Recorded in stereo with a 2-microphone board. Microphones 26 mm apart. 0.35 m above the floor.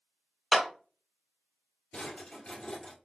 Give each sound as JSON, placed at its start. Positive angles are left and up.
{"t": 0.5, "sound": "a clap", "side_deg": -15, "distance_m": 1.0}
{"t": 1.9, "sound": "a drawer", "side_deg": 50, "distance_m": 1.6}